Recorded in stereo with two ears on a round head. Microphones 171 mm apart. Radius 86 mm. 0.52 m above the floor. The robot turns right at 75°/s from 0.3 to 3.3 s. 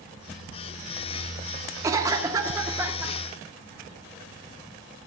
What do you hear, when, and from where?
1.8 s a cough: 15° right (ahead or behind), 0.7 m; by 3.1 s 5° right (ahead or behind), 0.7 m